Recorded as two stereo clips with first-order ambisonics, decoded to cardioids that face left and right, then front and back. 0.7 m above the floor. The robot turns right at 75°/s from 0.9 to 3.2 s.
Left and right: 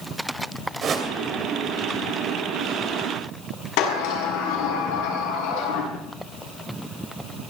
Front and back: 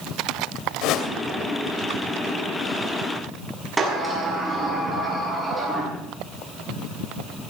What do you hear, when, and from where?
0.8 s a whoosh: 30° right, 2.5 m; by 1.1 s 15° right, 2.5 m
3.8 s a sliding door: 100° left, 6.5 m